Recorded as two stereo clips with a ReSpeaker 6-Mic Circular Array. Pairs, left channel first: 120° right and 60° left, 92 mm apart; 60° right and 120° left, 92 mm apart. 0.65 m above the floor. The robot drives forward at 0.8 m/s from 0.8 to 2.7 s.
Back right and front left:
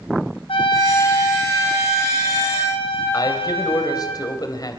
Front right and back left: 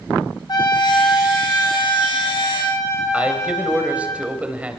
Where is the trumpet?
100° right, 5 m; by 4.1 s 115° right, 5.5 m.